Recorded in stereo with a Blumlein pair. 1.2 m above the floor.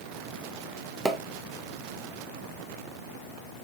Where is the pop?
10° right, 0.8 m.